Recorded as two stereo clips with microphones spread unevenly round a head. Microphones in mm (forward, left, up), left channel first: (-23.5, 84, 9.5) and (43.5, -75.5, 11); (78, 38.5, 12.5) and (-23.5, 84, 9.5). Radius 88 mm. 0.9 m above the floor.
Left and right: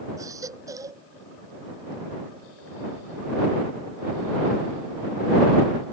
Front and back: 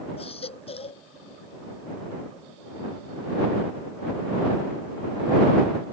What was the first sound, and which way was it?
A baby crying, 5° left.